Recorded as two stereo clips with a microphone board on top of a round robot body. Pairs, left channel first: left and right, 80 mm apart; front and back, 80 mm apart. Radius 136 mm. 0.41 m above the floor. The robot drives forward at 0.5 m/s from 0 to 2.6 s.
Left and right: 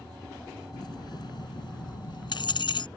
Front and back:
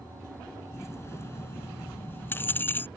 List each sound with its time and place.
0.7 s keys jangling: 55° left; by 2.9 s 65° left